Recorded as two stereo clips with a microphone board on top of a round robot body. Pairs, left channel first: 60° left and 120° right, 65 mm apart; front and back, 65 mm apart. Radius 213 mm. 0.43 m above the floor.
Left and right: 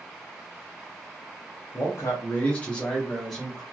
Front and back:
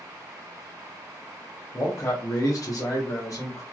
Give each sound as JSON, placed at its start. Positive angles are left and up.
{"t": 1.7, "sound": "a man speaking", "azimuth_deg": 35, "distance_m": 1.0}